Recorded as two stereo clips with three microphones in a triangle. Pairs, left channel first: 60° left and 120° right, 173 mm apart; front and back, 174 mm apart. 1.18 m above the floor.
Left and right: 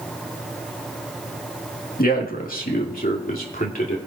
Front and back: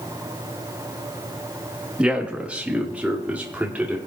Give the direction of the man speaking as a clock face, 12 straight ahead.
9 o'clock.